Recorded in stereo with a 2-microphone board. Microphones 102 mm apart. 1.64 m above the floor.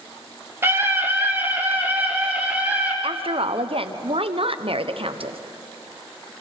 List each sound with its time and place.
0.6 s a scream: 25° right (ahead or behind), 2.5 m; by 2.9 s 15° right (ahead or behind), 5.5 m
3.0 s a woman speaking: 65° right (ahead or behind), 1.0 m